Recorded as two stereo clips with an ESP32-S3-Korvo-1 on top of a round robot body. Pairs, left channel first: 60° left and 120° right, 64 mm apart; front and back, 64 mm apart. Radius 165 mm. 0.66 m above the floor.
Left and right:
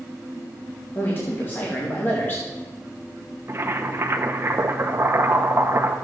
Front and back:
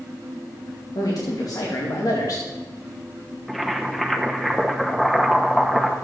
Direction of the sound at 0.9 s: 5° left.